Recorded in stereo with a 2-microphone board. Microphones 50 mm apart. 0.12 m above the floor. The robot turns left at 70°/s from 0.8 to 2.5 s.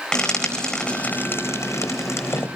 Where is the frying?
15° left (ahead or behind), 4 m; by 2.5 s 50° left (ahead or behind), 4 m.